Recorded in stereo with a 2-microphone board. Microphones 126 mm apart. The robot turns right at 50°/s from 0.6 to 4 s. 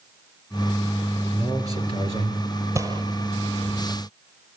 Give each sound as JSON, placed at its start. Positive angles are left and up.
{"t": 1.3, "sound": "a man speaking", "azimuth_deg": -165, "distance_m": 4.0}
{"t": 2.8, "sound": "a gunshot", "side_deg": -25, "distance_m": 1.5}